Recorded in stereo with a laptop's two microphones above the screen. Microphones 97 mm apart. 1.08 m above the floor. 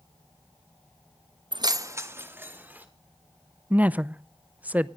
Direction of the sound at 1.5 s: 55° right (ahead or behind).